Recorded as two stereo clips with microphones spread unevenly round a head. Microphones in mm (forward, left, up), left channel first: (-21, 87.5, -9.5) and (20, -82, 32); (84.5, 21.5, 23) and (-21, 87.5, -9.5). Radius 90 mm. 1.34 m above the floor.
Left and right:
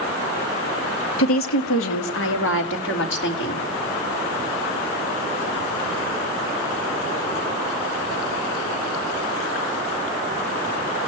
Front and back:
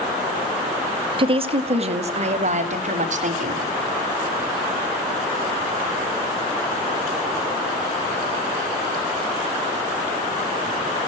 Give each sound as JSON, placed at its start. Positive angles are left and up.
{"t": 1.2, "sound": "a woman speaking", "azimuth_deg": 100, "distance_m": 1.9}